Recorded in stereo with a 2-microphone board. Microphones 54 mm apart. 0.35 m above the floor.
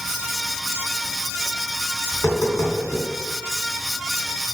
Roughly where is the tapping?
Left.